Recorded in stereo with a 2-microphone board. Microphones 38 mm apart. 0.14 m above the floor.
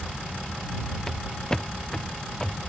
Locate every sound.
1.1 s footsteps: 15° left (ahead or behind)